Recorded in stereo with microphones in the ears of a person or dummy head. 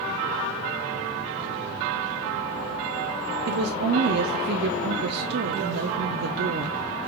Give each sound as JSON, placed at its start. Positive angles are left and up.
{"t": 3.5, "sound": "a woman speaking", "side_deg": -60, "distance_m": 0.5}